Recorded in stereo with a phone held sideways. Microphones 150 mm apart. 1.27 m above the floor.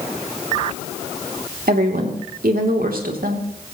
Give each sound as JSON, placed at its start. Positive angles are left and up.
{"t": 1.7, "sound": "a woman speaking", "side_deg": -80, "distance_m": 3.0}